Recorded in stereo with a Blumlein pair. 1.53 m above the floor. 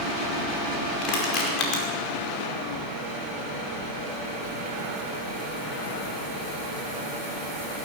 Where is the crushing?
40° left, 5 m.